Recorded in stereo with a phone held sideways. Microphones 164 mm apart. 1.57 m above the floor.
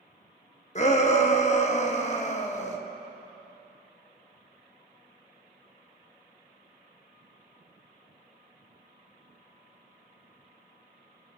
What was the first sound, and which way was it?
A shout, 45° left (ahead or behind).